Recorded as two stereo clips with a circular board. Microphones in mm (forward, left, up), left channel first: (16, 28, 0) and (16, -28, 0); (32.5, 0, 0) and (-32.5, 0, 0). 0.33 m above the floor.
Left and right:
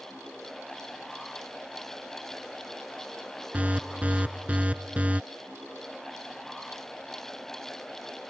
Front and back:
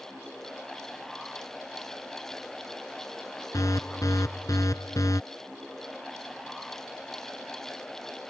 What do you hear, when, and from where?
3.5 s an alarm: 25° right